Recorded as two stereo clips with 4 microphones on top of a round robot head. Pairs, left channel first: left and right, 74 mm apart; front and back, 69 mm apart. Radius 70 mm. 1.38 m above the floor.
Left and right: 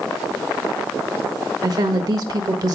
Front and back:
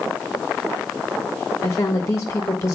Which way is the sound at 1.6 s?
60° right.